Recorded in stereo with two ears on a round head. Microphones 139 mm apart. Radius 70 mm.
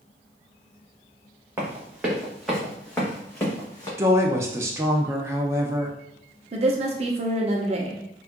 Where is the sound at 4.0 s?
20° right (ahead or behind), 0.5 m.